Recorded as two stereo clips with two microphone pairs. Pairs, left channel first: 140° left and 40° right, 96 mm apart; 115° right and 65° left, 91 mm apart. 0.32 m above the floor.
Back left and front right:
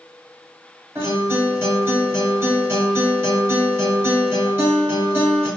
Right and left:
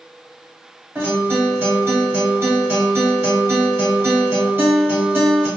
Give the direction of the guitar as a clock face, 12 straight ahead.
12 o'clock.